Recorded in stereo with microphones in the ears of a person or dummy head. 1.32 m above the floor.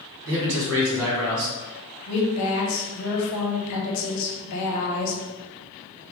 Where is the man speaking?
70° right (ahead or behind), 1.8 m.